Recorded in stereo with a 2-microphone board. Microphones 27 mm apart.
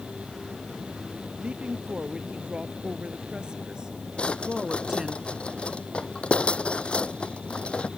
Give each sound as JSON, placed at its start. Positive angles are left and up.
{"t": 1.4, "sound": "a woman speaking", "side_deg": -40}
{"t": 4.2, "sound": "a drawer", "side_deg": 40}